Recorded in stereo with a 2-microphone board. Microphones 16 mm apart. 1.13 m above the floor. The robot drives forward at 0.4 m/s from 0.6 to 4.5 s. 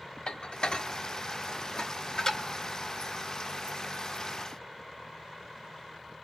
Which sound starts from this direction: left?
Dishes clattering, at 0.3 s.